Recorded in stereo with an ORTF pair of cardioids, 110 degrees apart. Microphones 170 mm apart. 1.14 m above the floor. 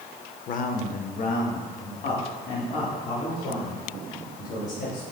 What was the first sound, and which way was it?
A man speaking, 50° left.